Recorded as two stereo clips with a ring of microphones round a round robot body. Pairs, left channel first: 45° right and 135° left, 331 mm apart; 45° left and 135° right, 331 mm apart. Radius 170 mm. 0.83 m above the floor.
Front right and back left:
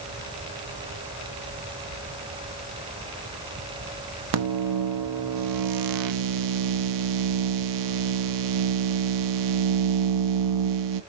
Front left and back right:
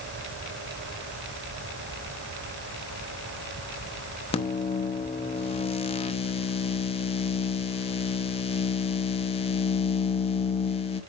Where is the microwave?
115° left, 0.9 m.